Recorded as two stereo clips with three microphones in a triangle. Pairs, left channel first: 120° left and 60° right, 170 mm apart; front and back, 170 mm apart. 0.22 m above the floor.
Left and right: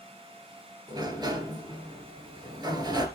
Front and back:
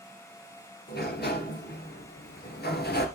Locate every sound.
0.9 s a sliding door: 5° left, 2 m